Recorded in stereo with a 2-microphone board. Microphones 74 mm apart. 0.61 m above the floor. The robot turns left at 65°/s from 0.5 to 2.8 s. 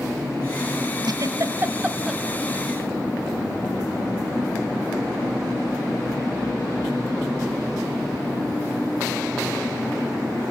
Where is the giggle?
75° right (ahead or behind), 1.8 m; by 2.2 s centre (ahead or behind), 1.8 m.